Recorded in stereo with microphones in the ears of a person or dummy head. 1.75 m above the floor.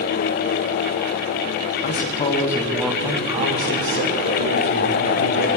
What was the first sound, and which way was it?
A man speaking, 40° left (ahead or behind).